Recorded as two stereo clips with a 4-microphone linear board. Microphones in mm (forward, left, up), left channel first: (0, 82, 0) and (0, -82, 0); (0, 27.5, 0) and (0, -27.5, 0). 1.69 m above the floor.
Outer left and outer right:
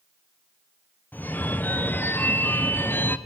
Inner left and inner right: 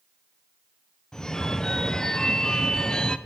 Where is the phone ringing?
10° left (ahead or behind), 0.5 m.